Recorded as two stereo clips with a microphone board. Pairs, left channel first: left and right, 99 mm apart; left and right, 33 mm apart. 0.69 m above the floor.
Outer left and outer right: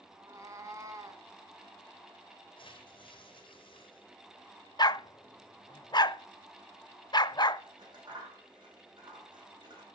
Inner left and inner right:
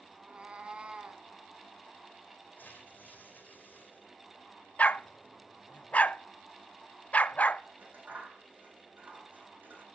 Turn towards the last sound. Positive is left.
turn(degrees=-50)  # may be behind; listen again after turning